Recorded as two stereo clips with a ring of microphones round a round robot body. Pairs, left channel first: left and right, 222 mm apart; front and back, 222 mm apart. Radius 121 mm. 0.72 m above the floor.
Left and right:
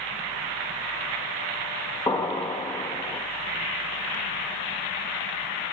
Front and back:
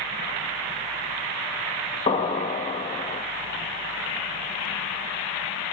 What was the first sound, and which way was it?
An explosion, 35° left.